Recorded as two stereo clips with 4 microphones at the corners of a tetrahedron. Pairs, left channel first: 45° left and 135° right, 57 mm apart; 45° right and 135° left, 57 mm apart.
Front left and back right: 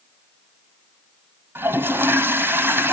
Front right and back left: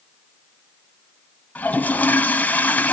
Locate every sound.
1.6 s a toilet flushing: 100° right, 0.8 m